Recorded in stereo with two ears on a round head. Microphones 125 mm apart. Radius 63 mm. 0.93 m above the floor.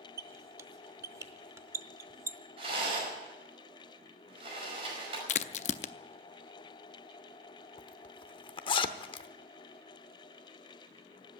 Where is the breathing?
No breathing in this recording.